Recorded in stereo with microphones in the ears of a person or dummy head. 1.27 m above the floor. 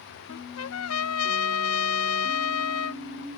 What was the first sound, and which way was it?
A trumpet, 90° left.